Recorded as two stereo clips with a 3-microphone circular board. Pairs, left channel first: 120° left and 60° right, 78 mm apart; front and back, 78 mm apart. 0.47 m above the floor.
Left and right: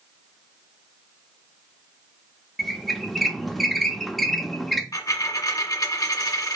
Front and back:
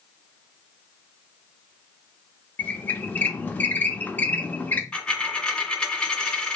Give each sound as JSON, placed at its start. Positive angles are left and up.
{"t": 2.6, "sound": "a squeak", "azimuth_deg": 30, "distance_m": 0.6}
{"t": 4.9, "sound": "a dropped coin", "azimuth_deg": 80, "distance_m": 1.6}